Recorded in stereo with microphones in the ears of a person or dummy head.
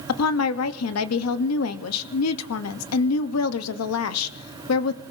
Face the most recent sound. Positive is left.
turn(degrees=85)